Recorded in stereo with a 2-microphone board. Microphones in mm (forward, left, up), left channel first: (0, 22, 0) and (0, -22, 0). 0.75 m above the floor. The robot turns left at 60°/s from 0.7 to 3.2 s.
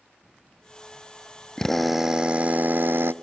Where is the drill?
15° left, 0.5 m; by 3.1 s 80° right, 0.5 m.